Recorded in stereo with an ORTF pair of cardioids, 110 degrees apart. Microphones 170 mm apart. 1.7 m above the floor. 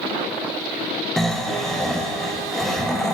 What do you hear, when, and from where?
1.2 s snoring: straight ahead, 0.7 m